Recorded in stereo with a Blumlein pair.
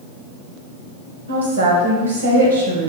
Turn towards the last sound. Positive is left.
turn(degrees=-65)